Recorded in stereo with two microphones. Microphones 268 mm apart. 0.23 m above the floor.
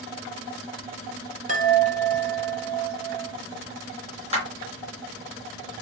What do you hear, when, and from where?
1.5 s a chime: 30° right (ahead or behind), 1.2 m
4.3 s a clap: 25° right (ahead or behind), 2.5 m